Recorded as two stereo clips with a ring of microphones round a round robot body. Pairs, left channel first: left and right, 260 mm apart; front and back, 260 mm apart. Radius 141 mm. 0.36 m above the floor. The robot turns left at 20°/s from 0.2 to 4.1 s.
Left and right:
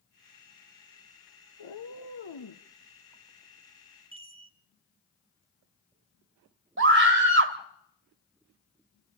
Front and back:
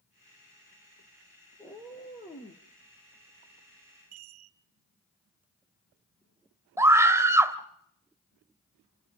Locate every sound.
1.6 s a cat meowing: 90° left, 1.8 m; by 2.6 s 70° left, 1.8 m
4.1 s a chime: 160° right, 1.7 m
6.8 s a scream: 105° right, 1.8 m